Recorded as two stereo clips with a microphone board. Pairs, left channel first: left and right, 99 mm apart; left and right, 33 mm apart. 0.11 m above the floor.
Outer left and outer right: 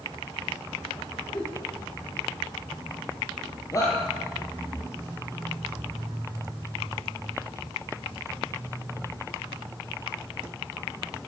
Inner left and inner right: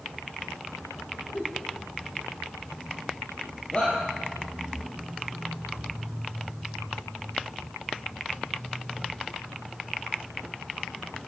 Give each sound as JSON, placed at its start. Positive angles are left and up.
{"t": 1.3, "sound": "a giggle", "side_deg": 35, "distance_m": 5.5}
{"t": 3.7, "sound": "a shout", "side_deg": 35, "distance_m": 4.0}